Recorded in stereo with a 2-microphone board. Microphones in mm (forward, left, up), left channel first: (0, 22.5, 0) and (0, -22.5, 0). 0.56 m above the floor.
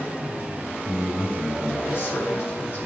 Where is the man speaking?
60° left (ahead or behind), 6 m.